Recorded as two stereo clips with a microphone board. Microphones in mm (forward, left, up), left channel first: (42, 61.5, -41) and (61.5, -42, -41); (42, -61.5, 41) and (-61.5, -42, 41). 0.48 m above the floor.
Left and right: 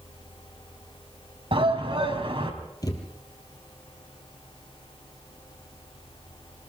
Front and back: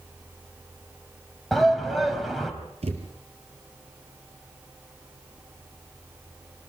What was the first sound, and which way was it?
A shout, 100° right.